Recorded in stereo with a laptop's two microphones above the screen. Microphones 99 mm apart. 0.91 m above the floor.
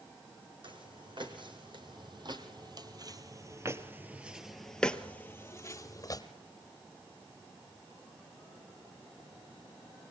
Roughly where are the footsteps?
Right.